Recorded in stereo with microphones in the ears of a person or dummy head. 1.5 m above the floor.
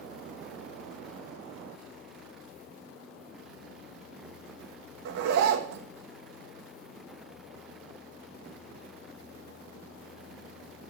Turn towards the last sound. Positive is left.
turn(degrees=-60)  # may be behind; listen again after turning